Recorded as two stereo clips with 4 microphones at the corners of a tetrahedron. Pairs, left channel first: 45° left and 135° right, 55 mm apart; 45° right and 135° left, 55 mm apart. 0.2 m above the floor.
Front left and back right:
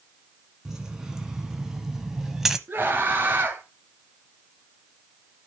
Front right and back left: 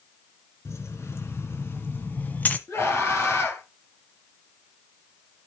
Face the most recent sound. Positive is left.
turn(degrees=-80)